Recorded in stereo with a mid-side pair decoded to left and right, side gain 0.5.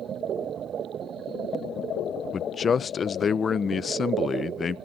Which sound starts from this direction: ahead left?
A man speaking, at 2.3 s.